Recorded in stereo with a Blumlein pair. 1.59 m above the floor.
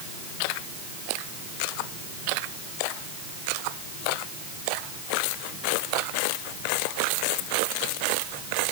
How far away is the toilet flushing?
No toilet flushing in this recording.